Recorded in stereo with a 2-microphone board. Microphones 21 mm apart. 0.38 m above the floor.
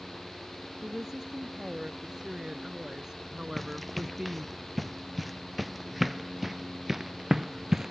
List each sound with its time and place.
0.8 s a woman speaking: 25° right (ahead or behind)
3.6 s running footsteps: 10° left (ahead or behind); by 7.9 s 20° right (ahead or behind)